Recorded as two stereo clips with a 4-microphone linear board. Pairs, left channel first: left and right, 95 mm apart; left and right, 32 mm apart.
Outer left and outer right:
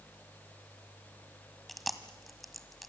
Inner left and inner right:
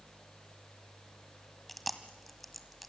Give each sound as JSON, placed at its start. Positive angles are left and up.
{"t": 1.7, "sound": "chewing", "side_deg": 0, "distance_m": 1.7}